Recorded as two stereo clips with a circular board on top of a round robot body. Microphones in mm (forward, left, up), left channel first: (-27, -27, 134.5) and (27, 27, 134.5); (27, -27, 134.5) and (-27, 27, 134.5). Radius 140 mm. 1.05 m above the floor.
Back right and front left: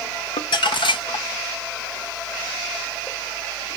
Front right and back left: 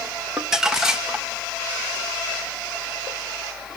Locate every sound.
0.4 s crumpling: 140° right, 1.2 m